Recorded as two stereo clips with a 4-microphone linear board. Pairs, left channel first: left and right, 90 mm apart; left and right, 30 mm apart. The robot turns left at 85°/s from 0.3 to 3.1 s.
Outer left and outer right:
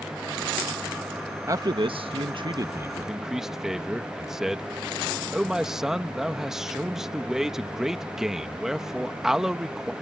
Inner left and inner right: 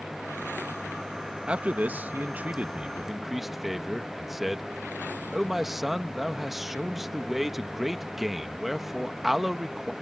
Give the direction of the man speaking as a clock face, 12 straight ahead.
1 o'clock.